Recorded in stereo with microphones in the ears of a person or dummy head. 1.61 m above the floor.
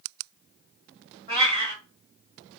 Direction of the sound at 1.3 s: 25° right (ahead or behind).